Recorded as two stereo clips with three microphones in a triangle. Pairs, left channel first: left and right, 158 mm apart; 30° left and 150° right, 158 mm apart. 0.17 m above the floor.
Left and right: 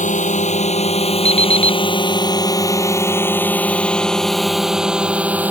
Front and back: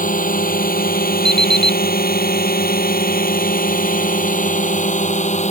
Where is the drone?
55° left; by 5.5 s 10° right.